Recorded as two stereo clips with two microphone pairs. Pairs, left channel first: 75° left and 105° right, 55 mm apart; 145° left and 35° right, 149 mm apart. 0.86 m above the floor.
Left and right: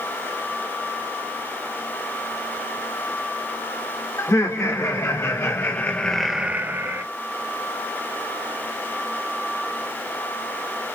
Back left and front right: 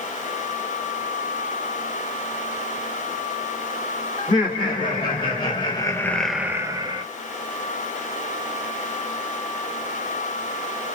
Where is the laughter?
90° left, 2.5 m; by 7.0 s 90° right, 1.2 m.